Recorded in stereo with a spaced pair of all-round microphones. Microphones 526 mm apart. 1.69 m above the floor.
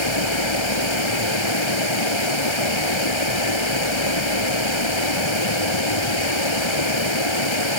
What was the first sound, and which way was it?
Running water, 60° left (ahead or behind).